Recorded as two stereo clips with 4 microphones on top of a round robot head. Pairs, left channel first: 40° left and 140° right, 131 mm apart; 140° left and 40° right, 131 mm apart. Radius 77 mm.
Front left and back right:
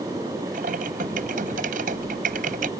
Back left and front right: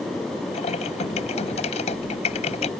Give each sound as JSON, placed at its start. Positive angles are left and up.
{"t": 0.5, "sound": "typing on a keyboard", "azimuth_deg": -175}